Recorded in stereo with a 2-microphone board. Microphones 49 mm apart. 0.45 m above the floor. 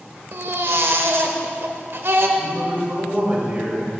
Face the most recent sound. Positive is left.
turn(degrees=-35)  # may be behind; listen again after turning